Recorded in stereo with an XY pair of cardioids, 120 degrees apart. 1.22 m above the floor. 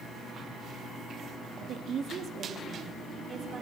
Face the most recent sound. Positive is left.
turn(degrees=-40)